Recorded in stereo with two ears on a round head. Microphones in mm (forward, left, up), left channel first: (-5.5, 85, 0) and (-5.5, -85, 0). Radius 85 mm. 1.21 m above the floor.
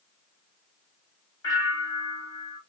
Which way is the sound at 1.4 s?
20° left (ahead or behind).